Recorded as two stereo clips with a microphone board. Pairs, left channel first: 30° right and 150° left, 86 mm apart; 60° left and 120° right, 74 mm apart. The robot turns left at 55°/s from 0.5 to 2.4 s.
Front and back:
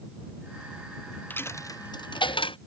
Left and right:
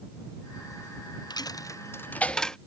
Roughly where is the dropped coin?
Ahead left.